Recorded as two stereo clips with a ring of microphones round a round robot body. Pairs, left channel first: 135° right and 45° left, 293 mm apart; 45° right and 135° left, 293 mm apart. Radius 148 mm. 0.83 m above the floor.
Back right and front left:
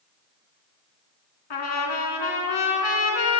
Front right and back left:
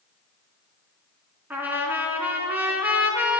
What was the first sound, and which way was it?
A trumpet, 140° right.